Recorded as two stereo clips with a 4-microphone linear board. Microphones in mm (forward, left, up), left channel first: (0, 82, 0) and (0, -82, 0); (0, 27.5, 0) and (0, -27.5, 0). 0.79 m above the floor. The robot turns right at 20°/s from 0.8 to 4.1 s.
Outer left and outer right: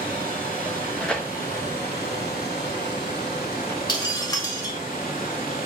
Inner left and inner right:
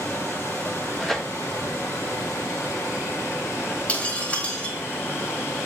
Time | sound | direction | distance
0.0 | running water | 55° left | 2.5 m
1.0 | tearing paper | 5° left (ahead or behind) | 0.8 m
3.9 | breaking glass | 25° left (ahead or behind) | 1.8 m